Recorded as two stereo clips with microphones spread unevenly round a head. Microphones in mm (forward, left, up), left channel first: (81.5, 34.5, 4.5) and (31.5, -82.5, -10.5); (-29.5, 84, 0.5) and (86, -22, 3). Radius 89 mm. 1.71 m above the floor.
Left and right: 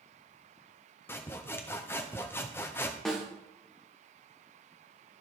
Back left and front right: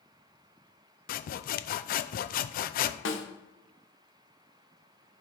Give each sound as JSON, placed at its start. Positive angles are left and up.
{"t": 1.1, "sound": "sawing", "azimuth_deg": 135, "distance_m": 0.5}
{"t": 3.0, "sound": "a snare drum", "azimuth_deg": 155, "distance_m": 1.3}